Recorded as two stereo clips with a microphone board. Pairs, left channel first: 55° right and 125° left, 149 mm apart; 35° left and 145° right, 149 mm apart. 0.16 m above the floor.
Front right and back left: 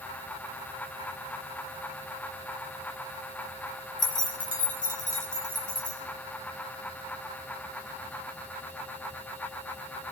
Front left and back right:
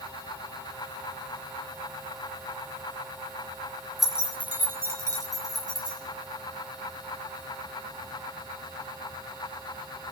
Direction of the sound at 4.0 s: 55° right.